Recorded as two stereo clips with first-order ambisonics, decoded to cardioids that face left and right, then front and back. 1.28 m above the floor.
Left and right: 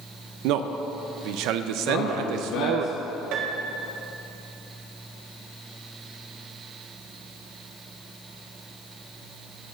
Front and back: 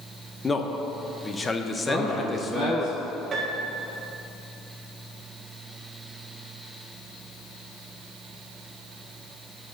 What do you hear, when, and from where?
0.4 s a man speaking: 75° right, 0.7 m
1.9 s a man speaking: 90° left, 3 m
3.3 s a piano: 115° right, 1.4 m